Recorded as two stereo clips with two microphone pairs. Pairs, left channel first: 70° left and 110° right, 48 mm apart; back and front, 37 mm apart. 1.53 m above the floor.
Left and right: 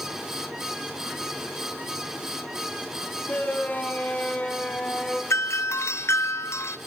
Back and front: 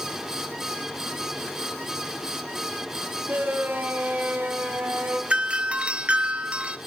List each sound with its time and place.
3.3 s a shout: 15° left, 6.5 m; by 5.2 s 5° right, 4.5 m
5.3 s a doorbell: 60° left, 1.1 m